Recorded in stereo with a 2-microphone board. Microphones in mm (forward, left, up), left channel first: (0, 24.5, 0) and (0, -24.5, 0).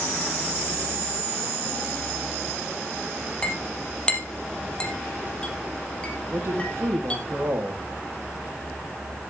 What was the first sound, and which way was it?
A clink, 20° left (ahead or behind).